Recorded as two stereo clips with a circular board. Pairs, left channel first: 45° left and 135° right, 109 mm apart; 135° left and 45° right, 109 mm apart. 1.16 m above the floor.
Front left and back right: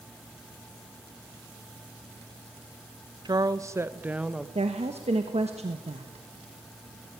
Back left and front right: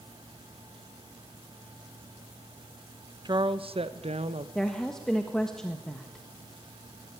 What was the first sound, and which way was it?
A woman speaking, 90° right.